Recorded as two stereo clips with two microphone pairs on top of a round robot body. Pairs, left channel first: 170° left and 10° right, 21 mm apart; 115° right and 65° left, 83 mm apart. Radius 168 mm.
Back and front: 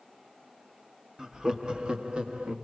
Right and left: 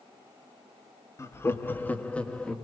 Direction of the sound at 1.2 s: 70° right.